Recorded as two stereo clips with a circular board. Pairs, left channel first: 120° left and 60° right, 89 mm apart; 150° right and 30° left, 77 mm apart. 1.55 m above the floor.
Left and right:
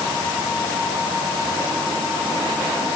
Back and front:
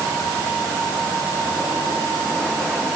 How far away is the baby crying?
I don't hear a baby crying.